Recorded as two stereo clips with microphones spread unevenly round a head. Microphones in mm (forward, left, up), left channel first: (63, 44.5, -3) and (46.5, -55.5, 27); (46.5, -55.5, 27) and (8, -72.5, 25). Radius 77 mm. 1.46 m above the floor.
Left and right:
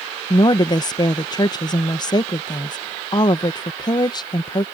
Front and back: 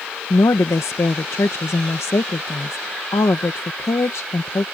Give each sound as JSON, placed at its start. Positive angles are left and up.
{"t": 0.3, "sound": "a woman speaking", "azimuth_deg": 35}